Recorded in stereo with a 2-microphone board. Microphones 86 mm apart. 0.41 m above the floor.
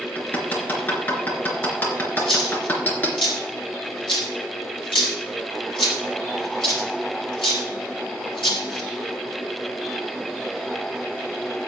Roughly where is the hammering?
Left.